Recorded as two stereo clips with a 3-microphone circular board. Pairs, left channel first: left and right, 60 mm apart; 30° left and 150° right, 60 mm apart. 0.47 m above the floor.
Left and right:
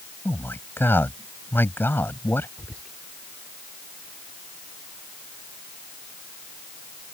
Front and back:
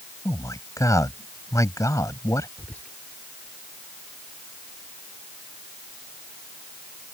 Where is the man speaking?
40° left.